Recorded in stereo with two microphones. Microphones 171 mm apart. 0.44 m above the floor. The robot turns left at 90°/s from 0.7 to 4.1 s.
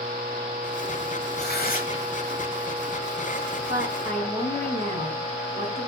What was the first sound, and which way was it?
Tearing paper, 90° left.